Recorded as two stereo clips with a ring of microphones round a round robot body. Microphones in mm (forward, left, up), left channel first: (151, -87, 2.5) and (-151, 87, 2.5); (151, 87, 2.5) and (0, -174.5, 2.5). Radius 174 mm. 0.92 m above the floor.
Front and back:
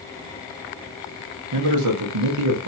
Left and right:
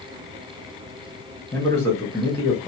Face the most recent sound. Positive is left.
turn(degrees=140)